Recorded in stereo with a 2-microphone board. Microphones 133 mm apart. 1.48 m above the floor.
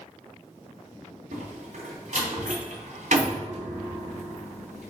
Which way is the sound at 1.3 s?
70° right (ahead or behind).